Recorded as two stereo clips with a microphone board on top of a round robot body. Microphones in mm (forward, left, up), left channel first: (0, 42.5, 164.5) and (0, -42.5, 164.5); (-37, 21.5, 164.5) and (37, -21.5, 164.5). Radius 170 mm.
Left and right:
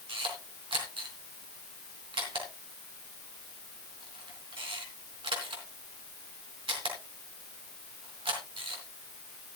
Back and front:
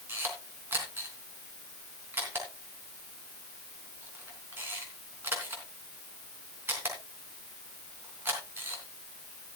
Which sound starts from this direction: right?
A camera shutter, at 0.1 s.